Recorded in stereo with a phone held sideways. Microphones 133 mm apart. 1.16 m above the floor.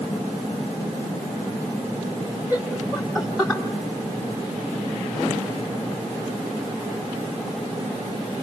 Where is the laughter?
15° right (ahead or behind), 4 m; by 3.6 s 5° left (ahead or behind), 3.5 m.